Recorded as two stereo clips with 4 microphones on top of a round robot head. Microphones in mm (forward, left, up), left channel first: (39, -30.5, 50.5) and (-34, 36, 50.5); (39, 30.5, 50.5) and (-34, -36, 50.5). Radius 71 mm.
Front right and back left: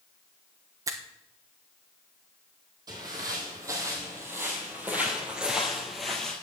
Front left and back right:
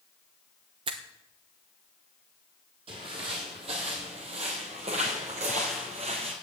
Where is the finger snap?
170° right, 0.9 m.